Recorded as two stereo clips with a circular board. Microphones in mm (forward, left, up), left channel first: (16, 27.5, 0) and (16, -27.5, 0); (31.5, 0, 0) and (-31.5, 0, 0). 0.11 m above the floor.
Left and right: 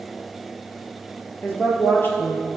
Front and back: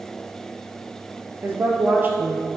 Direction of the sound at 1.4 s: 125° left.